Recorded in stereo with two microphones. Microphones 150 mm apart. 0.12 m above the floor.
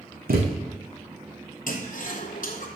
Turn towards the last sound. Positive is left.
turn(degrees=65)  # may be behind; listen again after turning